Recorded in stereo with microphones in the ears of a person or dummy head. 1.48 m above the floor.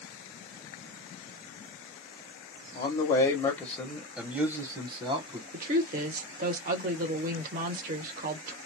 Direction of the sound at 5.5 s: 45° right (ahead or behind).